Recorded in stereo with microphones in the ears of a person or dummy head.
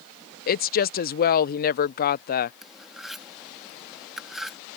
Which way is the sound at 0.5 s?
50° left (ahead or behind).